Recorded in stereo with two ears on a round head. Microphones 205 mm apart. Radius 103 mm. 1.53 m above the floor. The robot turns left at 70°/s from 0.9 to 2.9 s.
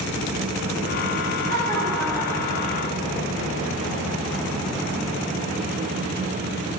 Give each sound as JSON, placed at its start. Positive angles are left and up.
{"t": 1.5, "sound": "laughter", "azimuth_deg": -130, "distance_m": 9.5}